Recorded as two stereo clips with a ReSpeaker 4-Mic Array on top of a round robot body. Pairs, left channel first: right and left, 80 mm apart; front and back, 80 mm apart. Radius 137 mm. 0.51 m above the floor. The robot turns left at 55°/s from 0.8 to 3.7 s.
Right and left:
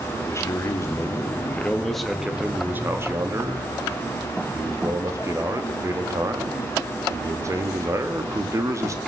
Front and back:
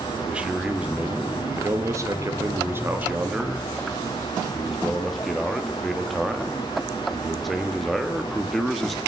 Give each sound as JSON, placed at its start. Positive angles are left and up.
{"t": 0.1, "sound": "a man speaking", "azimuth_deg": -110, "distance_m": 1.5}